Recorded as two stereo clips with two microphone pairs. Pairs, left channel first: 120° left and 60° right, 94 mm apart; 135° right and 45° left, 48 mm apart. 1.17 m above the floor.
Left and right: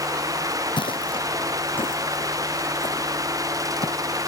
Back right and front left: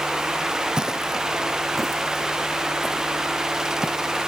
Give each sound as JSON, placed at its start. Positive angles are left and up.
{"t": 0.8, "sound": "footsteps", "azimuth_deg": 120}